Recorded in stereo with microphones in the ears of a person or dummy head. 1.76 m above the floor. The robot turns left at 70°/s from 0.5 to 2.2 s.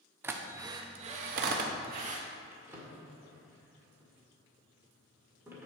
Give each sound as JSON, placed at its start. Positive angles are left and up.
{"t": 0.2, "sound": "a drill", "side_deg": -10, "distance_m": 0.8}
{"t": 2.5, "sound": "a drawer", "side_deg": -15, "distance_m": 1.8}